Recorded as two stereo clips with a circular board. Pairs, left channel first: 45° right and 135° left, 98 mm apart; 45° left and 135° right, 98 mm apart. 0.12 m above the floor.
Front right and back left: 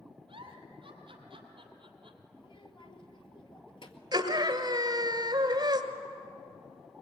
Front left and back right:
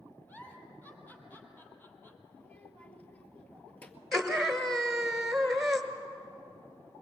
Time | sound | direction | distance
0.3 | a giggle | 115° left | 2.5 m
2.4 | a child speaking | 30° right | 1.9 m
4.1 | a scream | 135° left | 1.7 m